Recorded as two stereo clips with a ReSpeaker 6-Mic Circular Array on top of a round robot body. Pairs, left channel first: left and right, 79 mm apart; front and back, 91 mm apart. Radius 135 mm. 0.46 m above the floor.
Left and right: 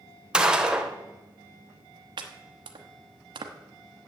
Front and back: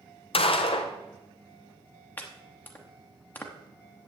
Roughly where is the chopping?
Right.